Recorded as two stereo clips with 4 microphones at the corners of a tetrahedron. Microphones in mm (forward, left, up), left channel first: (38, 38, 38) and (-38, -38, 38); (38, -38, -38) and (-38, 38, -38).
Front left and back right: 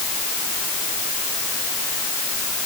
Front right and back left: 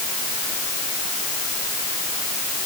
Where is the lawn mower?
I don't hear a lawn mower.